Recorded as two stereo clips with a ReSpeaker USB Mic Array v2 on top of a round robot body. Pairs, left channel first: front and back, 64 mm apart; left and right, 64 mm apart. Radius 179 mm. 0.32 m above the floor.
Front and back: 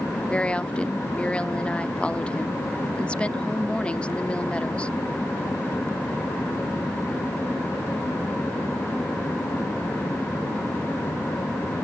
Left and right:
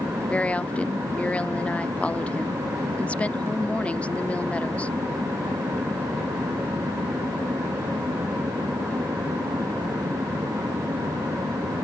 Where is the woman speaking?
50° left.